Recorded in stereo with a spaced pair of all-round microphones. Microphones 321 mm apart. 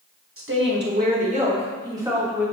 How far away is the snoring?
No snoring in this recording.